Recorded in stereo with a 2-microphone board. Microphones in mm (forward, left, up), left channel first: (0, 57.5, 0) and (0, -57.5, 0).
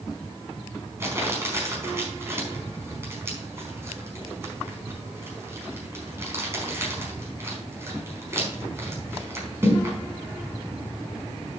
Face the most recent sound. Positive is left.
turn(degrees=-20)  # may be behind; listen again after turning